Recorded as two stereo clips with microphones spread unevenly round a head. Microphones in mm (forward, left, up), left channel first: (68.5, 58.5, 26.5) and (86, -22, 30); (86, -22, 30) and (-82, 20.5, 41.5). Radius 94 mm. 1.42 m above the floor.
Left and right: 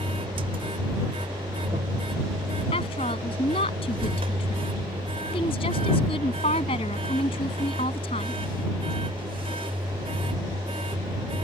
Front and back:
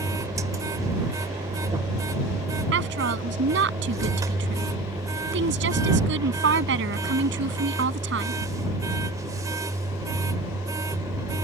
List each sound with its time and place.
0.0 s a machine running: 120° right
2.7 s a woman speaking: 145° left